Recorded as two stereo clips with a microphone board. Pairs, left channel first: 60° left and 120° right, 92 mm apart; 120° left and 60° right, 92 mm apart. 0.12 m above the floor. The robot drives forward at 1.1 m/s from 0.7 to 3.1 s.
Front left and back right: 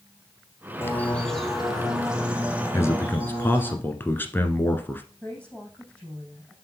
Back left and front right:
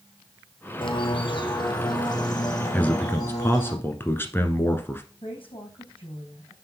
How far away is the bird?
About 0.9 m.